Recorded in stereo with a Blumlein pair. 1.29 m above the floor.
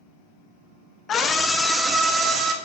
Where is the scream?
25° left, 0.9 m; by 2.5 s 20° right, 1.3 m.